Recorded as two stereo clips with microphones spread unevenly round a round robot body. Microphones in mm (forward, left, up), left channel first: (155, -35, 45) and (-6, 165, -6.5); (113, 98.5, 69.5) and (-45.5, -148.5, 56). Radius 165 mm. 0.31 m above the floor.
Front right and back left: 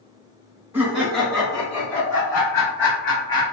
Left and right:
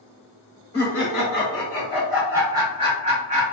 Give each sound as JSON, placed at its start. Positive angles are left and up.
{"t": 0.7, "sound": "laughter", "azimuth_deg": 75, "distance_m": 1.5}